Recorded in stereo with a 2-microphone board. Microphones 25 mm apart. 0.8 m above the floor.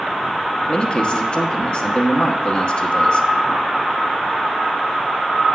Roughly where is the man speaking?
Left.